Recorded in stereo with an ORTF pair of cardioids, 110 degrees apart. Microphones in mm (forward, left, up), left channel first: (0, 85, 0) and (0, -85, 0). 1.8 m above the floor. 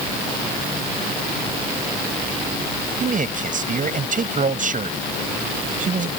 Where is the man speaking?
50° right.